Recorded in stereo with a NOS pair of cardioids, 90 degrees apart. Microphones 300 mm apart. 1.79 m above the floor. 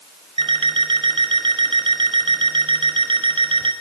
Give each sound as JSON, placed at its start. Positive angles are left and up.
{"t": 0.4, "sound": "an alarm clock", "azimuth_deg": -15, "distance_m": 6.0}